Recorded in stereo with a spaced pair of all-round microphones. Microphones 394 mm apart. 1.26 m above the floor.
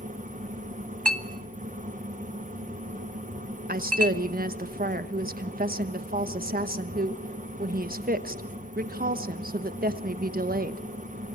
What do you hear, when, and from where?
0.0 s a fan: 20° right (ahead or behind), 1.2 m
1.1 s a clink: 75° right (ahead or behind), 1.2 m
3.7 s a woman speaking: 20° right (ahead or behind), 1.1 m